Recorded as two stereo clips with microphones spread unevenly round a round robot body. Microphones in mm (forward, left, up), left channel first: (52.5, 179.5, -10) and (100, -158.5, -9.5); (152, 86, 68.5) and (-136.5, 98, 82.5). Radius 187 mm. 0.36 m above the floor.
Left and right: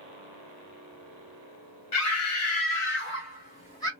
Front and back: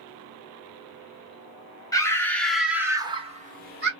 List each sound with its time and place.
1.9 s a scream: 70° left, 1.4 m; by 3.9 s 170° left, 1.1 m